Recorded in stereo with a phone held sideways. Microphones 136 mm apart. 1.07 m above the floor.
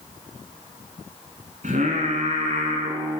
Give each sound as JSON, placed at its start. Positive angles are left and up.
{"t": 1.6, "sound": "singing", "side_deg": -70, "distance_m": 2.0}